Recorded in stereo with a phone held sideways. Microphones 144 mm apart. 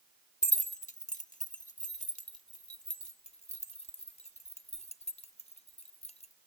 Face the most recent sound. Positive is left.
turn(degrees=50)  # may be behind; listen again after turning